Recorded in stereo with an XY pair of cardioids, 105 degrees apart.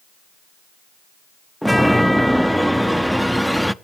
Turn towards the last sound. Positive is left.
turn(degrees=0)